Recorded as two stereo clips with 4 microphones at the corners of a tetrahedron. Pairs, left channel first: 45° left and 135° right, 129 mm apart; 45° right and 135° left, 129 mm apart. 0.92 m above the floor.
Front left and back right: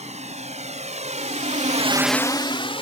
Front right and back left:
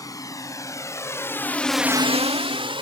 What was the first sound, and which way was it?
A drone, 110° right.